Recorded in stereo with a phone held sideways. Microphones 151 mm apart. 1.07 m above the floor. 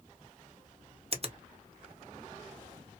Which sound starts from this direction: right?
A finger snap, at 1.1 s.